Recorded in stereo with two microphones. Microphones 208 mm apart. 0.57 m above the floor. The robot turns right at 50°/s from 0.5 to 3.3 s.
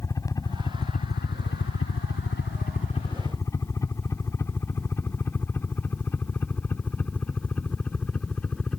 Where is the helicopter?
15° left (ahead or behind); by 8.8 s 5° left (ahead or behind).